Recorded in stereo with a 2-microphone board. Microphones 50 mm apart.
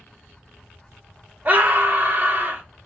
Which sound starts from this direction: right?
A scream, at 1.4 s.